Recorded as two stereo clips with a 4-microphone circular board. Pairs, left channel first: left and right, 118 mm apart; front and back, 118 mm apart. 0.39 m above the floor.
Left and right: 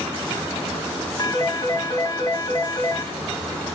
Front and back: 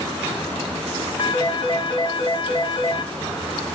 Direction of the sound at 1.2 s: 35° left.